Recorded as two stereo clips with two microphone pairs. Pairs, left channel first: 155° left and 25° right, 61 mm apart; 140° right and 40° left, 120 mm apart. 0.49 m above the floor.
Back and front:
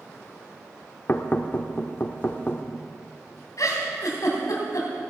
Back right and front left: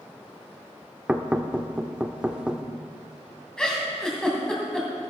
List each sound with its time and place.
1.1 s knocking: 115° left, 0.7 m
3.6 s a giggle: 140° left, 2.5 m